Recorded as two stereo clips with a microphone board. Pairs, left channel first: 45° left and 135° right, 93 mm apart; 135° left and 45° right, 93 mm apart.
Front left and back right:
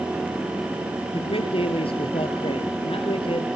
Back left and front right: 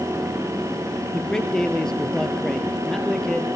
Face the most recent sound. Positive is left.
turn(degrees=50)